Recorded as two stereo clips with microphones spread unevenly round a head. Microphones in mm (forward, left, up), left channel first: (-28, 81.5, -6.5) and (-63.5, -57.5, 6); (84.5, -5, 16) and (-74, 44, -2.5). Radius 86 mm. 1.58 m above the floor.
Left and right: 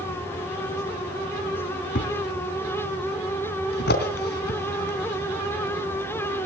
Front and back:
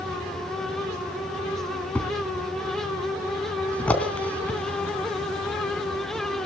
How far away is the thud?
About 3.5 m.